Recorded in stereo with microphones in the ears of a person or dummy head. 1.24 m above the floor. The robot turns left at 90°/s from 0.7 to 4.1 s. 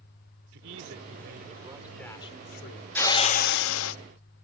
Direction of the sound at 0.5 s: 70° right.